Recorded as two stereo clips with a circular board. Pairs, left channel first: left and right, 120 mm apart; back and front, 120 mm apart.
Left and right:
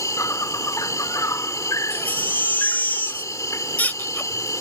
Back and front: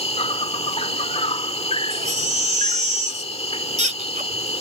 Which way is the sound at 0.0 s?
150° left.